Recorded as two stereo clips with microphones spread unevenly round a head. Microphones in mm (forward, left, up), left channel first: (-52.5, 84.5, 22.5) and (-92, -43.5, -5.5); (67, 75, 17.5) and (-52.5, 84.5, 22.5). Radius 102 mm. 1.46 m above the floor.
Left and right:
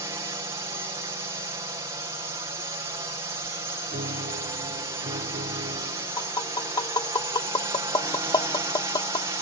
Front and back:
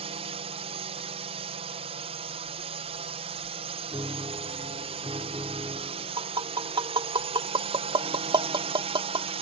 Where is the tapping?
130° left.